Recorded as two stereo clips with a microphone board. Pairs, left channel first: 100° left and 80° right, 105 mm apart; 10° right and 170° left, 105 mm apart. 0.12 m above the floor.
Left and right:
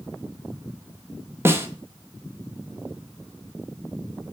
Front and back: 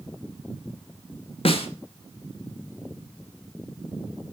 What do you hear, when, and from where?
1.4 s a snare drum: 15° right, 1.0 m